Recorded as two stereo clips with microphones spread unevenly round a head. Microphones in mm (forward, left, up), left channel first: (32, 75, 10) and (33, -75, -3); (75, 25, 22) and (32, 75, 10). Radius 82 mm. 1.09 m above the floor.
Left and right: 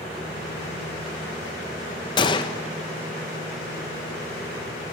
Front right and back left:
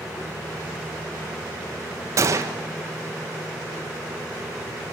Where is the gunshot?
155° left, 1.1 m.